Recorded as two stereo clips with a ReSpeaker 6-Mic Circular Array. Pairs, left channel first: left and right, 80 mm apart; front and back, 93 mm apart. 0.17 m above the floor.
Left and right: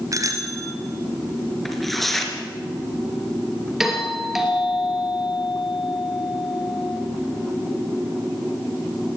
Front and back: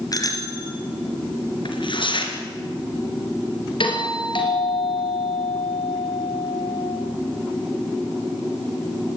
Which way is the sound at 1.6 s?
5° left.